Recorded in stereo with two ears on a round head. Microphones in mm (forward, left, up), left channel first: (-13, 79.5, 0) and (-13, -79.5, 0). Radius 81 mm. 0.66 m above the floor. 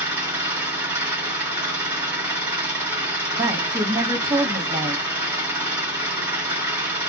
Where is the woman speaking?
20° right (ahead or behind), 0.9 m.